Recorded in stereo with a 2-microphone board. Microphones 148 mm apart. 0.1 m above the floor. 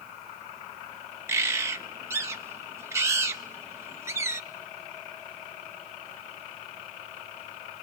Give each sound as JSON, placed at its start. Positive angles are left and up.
{"t": 1.3, "sound": "a bird", "side_deg": -20, "distance_m": 0.9}